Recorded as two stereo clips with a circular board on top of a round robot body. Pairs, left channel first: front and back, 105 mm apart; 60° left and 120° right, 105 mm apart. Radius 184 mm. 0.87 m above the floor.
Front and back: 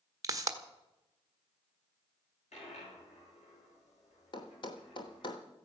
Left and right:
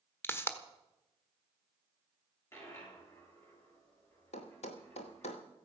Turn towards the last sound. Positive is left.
turn(degrees=45)